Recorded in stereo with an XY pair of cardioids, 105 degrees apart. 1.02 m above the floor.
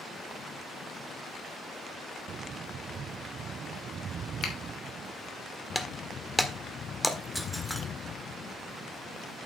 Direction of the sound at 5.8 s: Straight ahead.